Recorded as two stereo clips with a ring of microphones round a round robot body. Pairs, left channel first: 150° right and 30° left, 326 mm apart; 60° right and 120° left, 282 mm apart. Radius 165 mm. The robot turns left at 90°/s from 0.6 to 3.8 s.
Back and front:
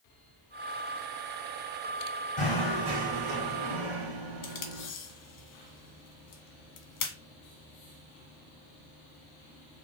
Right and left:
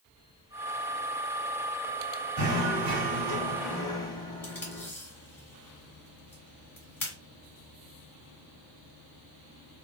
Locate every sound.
2.4 s knocking: 145° left, 1.4 m; by 4.9 s 15° left, 1.4 m
4.4 s tape being pulled: 140° right, 1.0 m